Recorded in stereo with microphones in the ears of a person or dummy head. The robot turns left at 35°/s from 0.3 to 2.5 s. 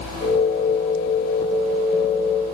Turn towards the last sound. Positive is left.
No sound to turn to.